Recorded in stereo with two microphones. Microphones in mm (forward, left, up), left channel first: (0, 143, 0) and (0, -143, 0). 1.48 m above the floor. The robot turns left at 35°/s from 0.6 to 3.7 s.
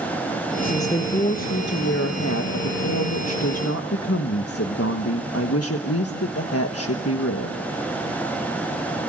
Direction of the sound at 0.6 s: 175° left.